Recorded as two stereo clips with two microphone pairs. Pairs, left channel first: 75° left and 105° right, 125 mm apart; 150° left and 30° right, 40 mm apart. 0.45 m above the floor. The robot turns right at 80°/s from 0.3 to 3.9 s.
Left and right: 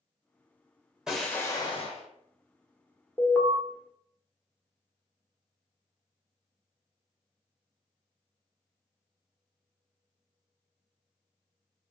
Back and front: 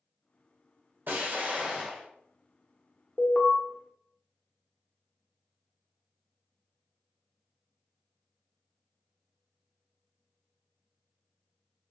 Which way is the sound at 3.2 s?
125° left.